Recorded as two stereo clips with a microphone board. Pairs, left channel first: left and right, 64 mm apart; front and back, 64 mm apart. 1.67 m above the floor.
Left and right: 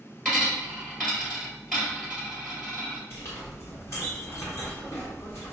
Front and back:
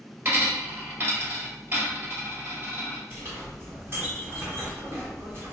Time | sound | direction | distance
0.2 | a dropped coin | 170° left | 1.8 m
3.1 | a clink | 130° left | 1.5 m